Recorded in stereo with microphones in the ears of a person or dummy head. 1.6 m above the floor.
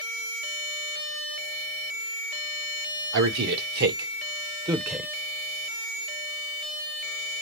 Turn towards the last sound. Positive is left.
turn(degrees=-5)  # may be behind; listen again after turning